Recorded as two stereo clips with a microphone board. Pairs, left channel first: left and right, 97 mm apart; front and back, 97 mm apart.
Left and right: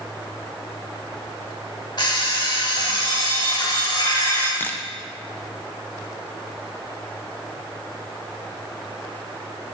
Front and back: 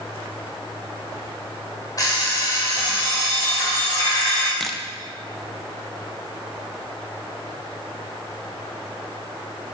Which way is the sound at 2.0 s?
50° left.